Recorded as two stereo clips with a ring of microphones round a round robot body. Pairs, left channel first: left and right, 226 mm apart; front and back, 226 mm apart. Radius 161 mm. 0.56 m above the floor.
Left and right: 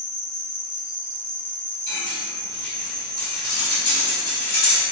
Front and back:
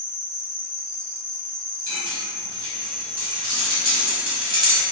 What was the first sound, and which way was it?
An insect, 140° left.